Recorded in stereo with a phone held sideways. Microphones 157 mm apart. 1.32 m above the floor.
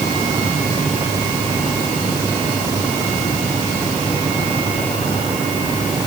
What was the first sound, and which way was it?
Only background noise.